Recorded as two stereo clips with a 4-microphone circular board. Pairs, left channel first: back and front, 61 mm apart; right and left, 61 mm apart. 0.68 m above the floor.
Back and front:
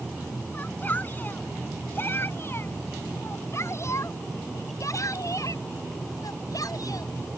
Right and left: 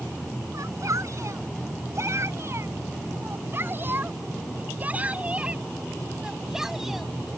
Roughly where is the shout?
Behind left.